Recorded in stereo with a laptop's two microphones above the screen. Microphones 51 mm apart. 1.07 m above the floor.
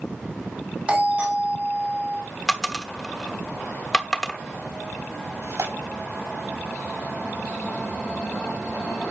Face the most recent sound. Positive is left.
turn(degrees=-60)  # may be behind; listen again after turning